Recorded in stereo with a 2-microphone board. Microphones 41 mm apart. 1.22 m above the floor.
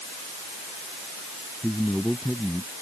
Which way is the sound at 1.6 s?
10° left (ahead or behind).